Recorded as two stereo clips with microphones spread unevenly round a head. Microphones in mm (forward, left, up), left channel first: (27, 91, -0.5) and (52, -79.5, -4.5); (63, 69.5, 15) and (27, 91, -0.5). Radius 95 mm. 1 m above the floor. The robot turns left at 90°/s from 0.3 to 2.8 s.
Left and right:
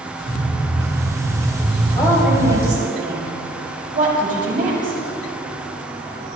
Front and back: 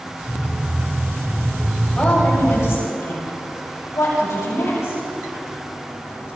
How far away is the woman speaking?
About 6.5 m.